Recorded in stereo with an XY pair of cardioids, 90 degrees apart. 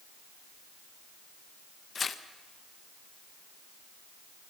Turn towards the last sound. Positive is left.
turn(degrees=50)